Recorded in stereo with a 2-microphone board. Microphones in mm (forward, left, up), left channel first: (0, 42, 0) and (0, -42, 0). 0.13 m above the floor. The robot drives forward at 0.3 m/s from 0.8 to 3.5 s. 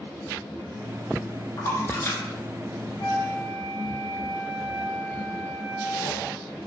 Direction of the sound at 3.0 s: 55° left (ahead or behind).